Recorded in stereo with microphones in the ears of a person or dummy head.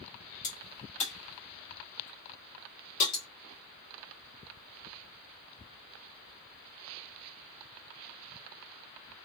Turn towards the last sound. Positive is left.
turn(degrees=40)  # may be behind; listen again after turning